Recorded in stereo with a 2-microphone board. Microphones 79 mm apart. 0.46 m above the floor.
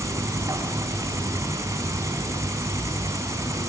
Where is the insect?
40° right (ahead or behind), 4 m.